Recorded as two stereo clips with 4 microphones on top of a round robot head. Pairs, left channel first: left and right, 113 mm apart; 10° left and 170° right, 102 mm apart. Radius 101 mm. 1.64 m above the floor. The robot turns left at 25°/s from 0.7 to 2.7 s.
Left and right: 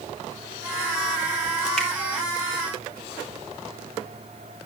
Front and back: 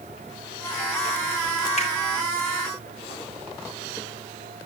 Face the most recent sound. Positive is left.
turn(degrees=-15)